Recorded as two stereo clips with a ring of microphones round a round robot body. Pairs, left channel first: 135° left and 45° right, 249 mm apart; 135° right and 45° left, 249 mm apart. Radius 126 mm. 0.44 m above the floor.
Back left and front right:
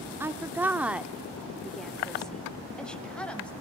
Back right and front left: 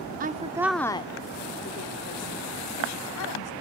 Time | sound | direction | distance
0.2 | a woman speaking | 30° left | 0.8 m